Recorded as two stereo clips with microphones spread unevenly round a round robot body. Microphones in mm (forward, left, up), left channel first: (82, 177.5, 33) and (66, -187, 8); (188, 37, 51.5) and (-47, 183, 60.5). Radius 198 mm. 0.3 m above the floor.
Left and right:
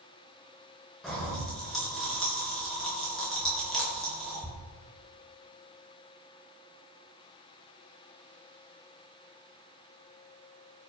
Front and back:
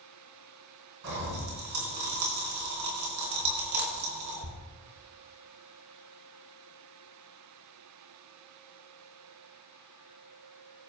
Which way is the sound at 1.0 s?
Straight behind.